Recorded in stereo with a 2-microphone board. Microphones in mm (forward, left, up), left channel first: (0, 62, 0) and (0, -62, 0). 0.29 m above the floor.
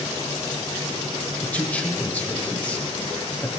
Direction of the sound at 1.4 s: 10° left (ahead or behind).